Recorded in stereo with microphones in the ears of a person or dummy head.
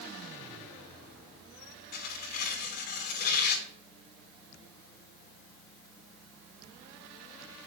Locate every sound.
1.9 s tearing paper: 55° left (ahead or behind), 2 m